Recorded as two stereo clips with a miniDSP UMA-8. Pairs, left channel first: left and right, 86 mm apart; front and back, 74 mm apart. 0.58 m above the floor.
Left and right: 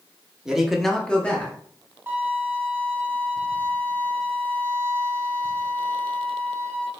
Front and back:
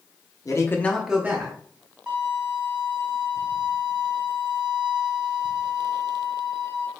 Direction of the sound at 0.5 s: 10° right.